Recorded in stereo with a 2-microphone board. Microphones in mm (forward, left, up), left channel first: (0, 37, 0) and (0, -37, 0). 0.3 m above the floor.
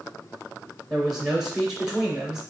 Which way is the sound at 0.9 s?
10° right (ahead or behind).